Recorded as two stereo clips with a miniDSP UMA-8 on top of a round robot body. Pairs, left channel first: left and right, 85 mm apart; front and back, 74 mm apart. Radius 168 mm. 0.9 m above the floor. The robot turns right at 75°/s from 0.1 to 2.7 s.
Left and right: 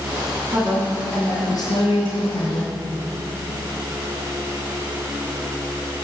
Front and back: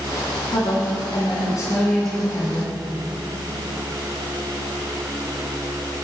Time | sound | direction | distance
0.5 | a woman speaking | 35° right | 2 m